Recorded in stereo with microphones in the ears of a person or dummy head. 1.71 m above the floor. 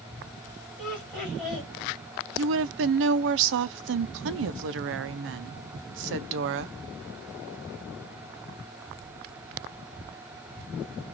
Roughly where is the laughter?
Centre.